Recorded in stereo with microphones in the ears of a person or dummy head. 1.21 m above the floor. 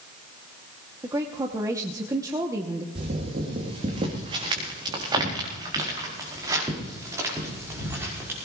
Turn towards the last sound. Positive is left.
turn(degrees=-10)  # may be behind; listen again after turning